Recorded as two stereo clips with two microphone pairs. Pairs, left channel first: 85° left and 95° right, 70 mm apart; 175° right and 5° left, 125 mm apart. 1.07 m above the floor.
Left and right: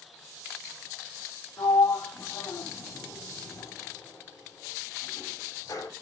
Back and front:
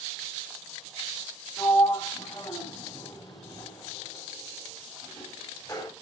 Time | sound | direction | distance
1.6 | a sliding door | 120° left | 3.5 m